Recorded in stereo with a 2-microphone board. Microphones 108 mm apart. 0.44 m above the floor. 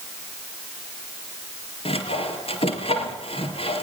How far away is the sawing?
About 3.5 m.